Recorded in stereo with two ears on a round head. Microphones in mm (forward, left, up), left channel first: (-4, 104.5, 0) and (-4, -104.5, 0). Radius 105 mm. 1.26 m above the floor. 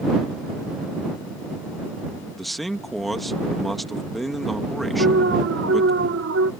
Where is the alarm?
55° right (ahead or behind).